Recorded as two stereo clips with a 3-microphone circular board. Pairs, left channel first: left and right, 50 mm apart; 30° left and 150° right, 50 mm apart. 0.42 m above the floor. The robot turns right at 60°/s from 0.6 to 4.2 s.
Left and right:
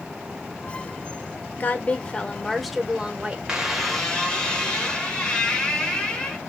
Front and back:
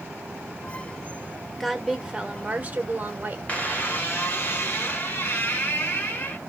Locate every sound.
1.6 s a woman speaking: 115° left, 1.0 m; by 3.4 s 135° right, 1.0 m
3.5 s a squeak: 20° right, 1.2 m; by 6.4 s 25° left, 1.2 m